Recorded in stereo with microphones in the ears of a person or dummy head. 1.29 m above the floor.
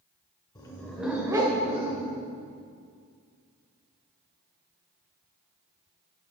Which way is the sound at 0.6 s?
20° left (ahead or behind).